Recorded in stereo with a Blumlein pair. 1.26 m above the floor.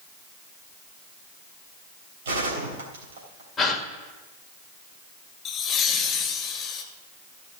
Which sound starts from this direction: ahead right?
A gunshot, at 2.2 s.